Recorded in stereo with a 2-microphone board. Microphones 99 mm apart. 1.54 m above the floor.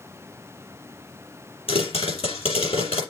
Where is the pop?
75° left (ahead or behind), 5.5 m.